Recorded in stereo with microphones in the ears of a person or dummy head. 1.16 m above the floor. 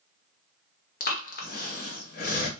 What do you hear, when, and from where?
1.0 s breathing: 40° left (ahead or behind), 0.9 m